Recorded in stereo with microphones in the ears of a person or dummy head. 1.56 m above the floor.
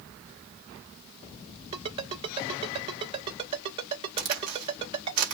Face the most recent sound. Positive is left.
turn(degrees=-40)  # may be behind; listen again after turning